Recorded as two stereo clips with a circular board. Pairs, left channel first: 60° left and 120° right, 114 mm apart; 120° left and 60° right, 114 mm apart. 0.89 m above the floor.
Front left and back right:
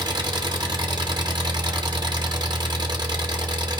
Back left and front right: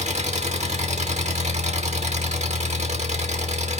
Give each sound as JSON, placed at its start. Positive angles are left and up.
{"t": 0.0, "sound": "an engine running", "azimuth_deg": -70, "distance_m": 1.2}